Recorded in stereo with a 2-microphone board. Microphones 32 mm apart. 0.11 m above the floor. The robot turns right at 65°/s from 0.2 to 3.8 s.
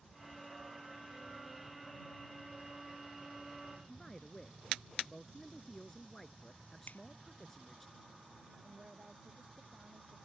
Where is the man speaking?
15° left (ahead or behind).